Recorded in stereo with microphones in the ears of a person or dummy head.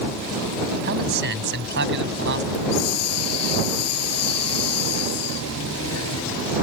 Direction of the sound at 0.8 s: 60° right (ahead or behind).